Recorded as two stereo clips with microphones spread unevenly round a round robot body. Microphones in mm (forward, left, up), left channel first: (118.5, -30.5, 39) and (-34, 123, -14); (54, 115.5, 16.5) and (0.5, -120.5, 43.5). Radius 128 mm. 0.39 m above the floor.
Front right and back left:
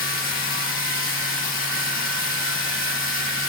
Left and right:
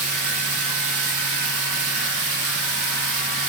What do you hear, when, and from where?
0.0 s running water: 105° right, 9.5 m